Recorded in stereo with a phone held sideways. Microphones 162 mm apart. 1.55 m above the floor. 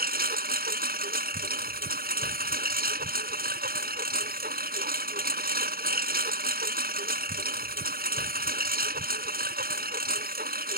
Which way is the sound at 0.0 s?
70° right (ahead or behind).